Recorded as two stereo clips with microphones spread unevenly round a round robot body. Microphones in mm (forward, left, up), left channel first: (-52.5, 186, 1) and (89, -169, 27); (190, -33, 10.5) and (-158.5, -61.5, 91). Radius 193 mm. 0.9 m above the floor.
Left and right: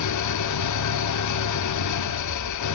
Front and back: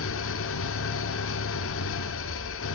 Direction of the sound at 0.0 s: 65° left.